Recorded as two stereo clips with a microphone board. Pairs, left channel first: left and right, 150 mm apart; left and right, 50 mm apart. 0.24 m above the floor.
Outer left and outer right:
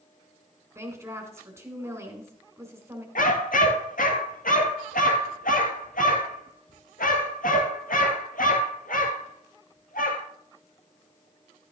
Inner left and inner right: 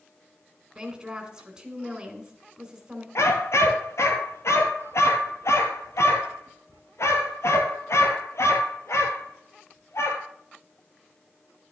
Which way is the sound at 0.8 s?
20° right (ahead or behind).